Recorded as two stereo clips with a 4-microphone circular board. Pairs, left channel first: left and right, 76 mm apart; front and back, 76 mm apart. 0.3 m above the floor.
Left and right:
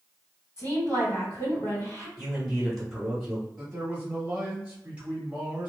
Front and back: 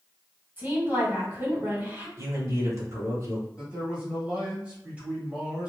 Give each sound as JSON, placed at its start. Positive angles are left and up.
{"t": 0.6, "sound": "a woman speaking", "azimuth_deg": 125, "distance_m": 1.7}
{"t": 2.2, "sound": "a man speaking", "azimuth_deg": -175, "distance_m": 1.1}
{"t": 3.6, "sound": "a man speaking", "azimuth_deg": -135, "distance_m": 1.1}